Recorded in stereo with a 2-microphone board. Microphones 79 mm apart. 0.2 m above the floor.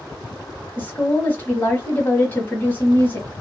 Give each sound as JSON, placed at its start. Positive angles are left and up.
{"t": 0.8, "sound": "a woman speaking", "side_deg": 25, "distance_m": 1.2}